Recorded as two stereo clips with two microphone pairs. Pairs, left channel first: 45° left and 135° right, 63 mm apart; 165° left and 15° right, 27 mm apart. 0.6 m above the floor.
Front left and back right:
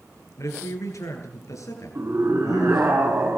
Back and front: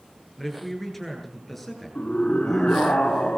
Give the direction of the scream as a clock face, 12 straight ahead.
6 o'clock.